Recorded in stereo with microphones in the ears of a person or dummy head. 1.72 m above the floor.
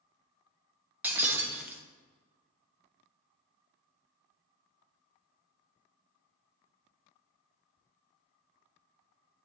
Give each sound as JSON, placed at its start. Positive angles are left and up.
{"t": 1.0, "sound": "breaking glass", "side_deg": -5, "distance_m": 0.9}